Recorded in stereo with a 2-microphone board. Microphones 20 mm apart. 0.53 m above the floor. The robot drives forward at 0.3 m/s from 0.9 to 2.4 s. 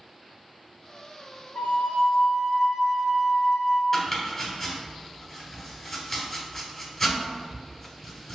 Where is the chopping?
20° left (ahead or behind), 1.4 m.